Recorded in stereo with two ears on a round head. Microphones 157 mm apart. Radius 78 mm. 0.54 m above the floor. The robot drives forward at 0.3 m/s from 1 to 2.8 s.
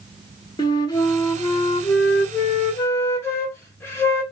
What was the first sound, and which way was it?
A flute, 25° left (ahead or behind).